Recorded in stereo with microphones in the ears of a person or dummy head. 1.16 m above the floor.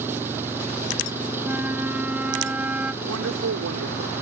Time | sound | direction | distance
0.0 | an engine running | 15° right (ahead or behind) | ?
1.4 | a flute | 10° right (ahead or behind) | ?
3.0 | a woman speaking | 80° right | ?